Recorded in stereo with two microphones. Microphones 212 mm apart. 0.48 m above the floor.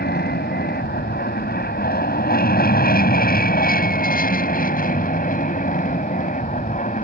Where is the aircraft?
50° left (ahead or behind); by 7.0 s 40° left (ahead or behind).